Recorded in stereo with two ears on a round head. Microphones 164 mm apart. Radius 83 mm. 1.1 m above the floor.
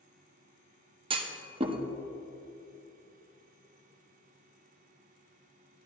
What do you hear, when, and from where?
1.1 s a clunk: 30° right (ahead or behind), 0.8 m